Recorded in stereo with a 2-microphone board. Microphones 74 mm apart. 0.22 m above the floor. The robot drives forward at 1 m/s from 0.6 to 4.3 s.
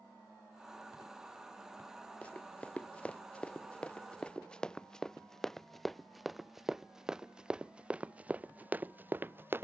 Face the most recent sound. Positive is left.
turn(degrees=-30)  # may be behind; listen again after turning